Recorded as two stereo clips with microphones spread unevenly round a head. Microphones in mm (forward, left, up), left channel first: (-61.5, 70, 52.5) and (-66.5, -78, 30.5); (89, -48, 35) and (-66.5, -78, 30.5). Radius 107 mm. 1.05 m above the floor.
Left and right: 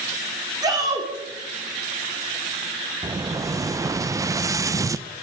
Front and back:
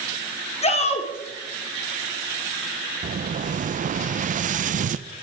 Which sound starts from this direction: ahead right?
A shout, at 0.6 s.